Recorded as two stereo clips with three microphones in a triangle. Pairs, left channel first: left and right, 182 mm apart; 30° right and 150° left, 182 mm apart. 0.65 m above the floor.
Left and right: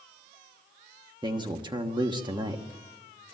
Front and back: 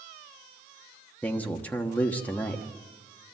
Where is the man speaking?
100° right, 1.2 m.